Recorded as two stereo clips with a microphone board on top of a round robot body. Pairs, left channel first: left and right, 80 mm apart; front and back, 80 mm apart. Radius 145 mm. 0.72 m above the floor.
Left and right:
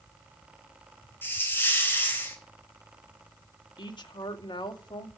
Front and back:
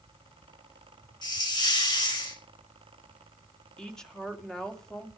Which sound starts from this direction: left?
A woman speaking, at 3.8 s.